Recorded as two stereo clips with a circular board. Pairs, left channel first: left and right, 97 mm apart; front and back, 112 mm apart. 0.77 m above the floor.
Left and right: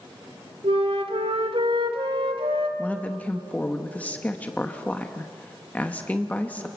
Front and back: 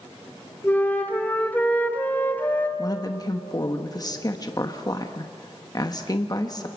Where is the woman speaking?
25° left, 1.0 m.